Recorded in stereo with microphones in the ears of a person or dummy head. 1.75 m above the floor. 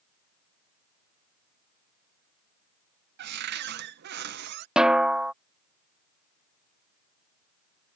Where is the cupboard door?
60° right (ahead or behind).